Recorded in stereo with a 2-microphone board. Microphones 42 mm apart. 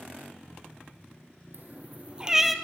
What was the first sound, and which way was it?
A cat meowing, 55° right (ahead or behind).